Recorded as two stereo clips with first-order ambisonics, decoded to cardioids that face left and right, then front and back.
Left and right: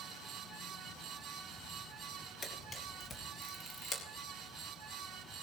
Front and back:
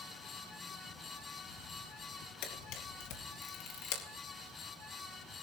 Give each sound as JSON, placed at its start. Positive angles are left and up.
{"t": 2.4, "sound": "a camera shutter", "azimuth_deg": 20, "distance_m": 3.5}